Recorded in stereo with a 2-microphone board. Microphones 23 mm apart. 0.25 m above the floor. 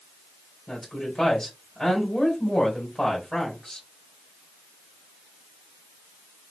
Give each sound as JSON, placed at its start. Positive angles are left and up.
{"t": 0.7, "sound": "a woman speaking", "side_deg": 10, "distance_m": 1.6}